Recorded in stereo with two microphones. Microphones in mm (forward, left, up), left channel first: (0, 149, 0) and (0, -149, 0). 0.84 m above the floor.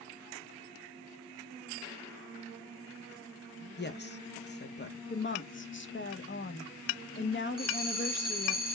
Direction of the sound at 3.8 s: 35° left (ahead or behind).